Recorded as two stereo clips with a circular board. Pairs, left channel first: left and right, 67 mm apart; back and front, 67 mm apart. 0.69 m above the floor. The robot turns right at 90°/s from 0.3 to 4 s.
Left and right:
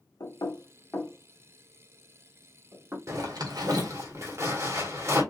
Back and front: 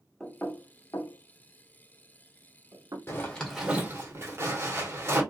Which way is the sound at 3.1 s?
130° right.